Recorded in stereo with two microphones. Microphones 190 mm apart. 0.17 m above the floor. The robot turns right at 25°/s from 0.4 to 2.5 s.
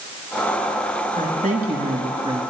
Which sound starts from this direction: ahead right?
A woman speaking, at 1.2 s.